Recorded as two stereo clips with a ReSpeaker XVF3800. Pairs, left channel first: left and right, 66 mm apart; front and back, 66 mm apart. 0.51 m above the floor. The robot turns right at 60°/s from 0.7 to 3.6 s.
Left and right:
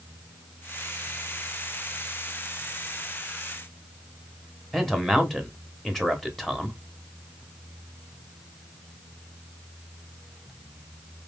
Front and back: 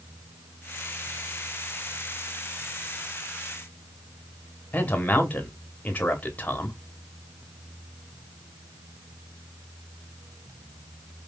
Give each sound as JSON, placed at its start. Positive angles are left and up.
{"t": 4.7, "sound": "a man speaking", "azimuth_deg": 5, "distance_m": 0.9}